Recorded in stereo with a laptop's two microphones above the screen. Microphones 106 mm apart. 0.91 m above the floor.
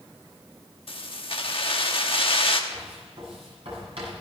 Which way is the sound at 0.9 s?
60° left (ahead or behind).